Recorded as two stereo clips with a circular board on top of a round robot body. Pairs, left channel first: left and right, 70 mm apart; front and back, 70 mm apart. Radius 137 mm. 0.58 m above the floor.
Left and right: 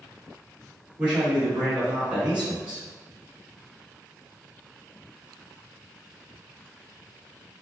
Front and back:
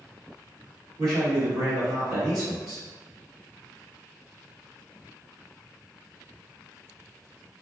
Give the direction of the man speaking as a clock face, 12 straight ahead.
5 o'clock.